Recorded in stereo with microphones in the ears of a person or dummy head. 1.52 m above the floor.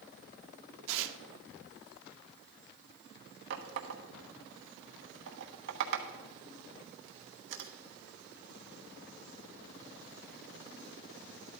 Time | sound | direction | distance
0.9 | tearing paper | 65° right (ahead or behind) | 0.9 m
3.5 | a running tap | 65° right (ahead or behind) | 1.1 m